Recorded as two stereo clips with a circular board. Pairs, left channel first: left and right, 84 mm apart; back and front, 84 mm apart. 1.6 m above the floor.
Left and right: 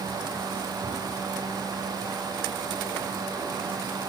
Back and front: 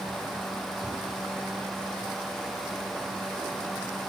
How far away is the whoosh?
About 8.5 m.